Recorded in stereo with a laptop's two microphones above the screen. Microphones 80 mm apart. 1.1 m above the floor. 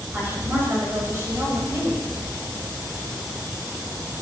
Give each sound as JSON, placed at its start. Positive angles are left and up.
{"t": 0.1, "sound": "a woman speaking", "side_deg": -25, "distance_m": 6.5}